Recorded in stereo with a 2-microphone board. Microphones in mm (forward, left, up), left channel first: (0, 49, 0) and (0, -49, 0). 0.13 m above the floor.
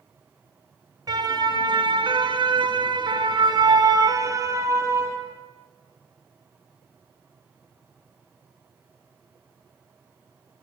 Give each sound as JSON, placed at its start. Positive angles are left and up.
{"t": 1.1, "sound": "a siren", "side_deg": -40, "distance_m": 2.5}